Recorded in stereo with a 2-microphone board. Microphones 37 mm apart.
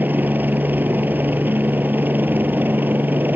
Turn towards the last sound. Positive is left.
turn(degrees=-55)  # may be behind; listen again after turning